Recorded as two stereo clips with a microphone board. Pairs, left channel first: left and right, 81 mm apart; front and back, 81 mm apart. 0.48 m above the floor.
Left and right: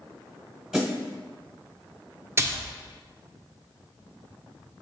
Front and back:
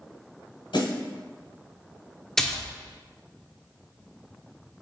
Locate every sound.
0.7 s a snare drum: 5° right, 1.5 m
2.4 s a splash: 80° right, 0.5 m